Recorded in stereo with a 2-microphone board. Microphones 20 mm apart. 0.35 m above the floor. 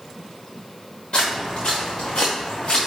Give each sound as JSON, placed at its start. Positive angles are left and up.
{"t": 1.1, "sound": "footsteps", "side_deg": 65, "distance_m": 1.7}